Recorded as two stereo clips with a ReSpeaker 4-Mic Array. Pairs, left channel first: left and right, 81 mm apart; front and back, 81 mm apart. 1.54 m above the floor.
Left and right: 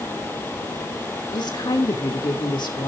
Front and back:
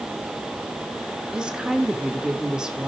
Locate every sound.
1.3 s a woman speaking: 100° left, 3 m